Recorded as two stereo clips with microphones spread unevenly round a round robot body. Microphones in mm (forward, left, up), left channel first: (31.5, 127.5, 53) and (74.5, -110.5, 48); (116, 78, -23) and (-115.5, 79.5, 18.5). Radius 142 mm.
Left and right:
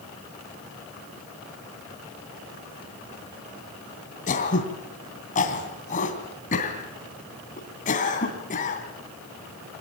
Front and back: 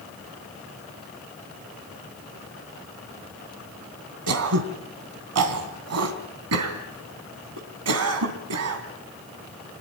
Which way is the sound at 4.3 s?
165° left.